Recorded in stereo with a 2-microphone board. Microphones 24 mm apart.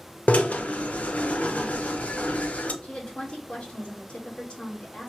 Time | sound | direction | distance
0.3 | a drill | 70° left (ahead or behind) | 0.6 m
2.8 | a woman speaking | 50° left (ahead or behind) | 1.7 m